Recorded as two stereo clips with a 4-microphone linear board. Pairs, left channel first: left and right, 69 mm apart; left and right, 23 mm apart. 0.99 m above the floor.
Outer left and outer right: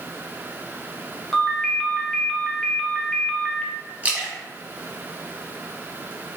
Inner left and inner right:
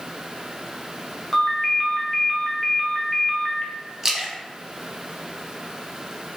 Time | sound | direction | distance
1.3 | a ringtone | 5° left (ahead or behind) | 0.8 m
4.0 | a splash | 20° right (ahead or behind) | 0.9 m